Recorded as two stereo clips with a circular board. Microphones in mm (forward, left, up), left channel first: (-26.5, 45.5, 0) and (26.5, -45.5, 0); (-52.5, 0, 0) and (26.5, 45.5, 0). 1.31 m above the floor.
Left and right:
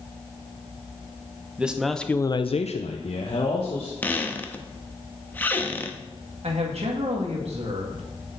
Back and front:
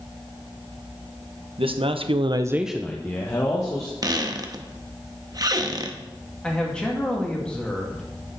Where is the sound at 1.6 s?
20° left, 1.0 m; by 3.9 s 155° left, 1.7 m.